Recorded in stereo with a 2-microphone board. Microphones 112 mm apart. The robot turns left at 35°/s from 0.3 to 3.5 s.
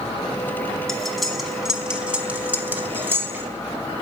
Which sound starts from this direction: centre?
Cutlery clinking, at 0.9 s.